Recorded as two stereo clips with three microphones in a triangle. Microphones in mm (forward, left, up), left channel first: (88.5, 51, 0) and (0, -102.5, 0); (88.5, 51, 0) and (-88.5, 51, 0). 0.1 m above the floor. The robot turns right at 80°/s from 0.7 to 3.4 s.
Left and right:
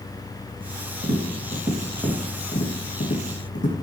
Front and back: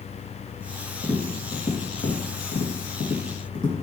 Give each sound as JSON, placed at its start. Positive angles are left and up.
{"t": 1.0, "sound": "tapping", "azimuth_deg": -125, "distance_m": 3.5}